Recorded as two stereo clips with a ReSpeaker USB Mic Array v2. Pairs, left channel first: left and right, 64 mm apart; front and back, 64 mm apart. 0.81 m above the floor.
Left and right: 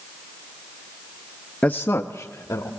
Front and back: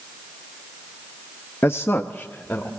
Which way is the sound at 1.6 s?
25° left.